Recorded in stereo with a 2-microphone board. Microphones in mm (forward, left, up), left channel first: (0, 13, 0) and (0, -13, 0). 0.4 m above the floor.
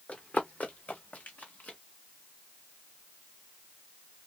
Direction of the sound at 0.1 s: 65° left (ahead or behind).